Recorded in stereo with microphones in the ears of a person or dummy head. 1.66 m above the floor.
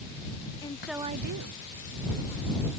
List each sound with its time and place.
0.6 s a woman speaking: 20° left (ahead or behind); by 2.7 s 70° right (ahead or behind)